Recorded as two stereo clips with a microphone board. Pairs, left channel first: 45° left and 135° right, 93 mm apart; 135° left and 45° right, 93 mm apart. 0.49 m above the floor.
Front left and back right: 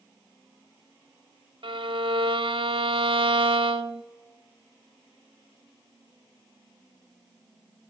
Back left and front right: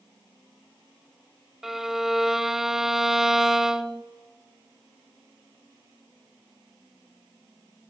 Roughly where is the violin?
Behind right.